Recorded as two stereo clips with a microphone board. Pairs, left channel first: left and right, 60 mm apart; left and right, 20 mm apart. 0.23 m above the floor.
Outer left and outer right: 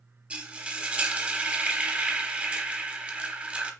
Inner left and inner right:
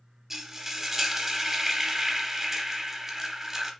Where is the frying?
20° right (ahead or behind), 1.0 m.